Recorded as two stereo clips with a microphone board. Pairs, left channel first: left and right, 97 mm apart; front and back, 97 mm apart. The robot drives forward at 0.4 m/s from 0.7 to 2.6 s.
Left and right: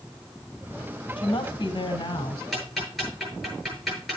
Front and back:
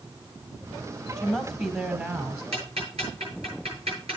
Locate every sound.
1.2 s a woman speaking: 105° left, 1.4 m; by 2.4 s 125° left, 1.6 m
2.5 s ticking: straight behind, 7.5 m